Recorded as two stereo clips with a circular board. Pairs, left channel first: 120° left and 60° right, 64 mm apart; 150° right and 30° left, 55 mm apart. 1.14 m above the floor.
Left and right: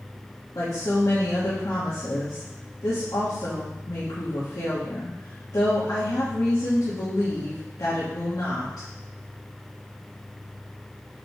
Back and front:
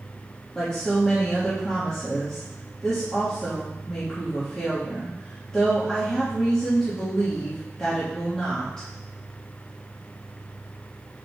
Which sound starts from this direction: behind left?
A woman speaking, at 0.6 s.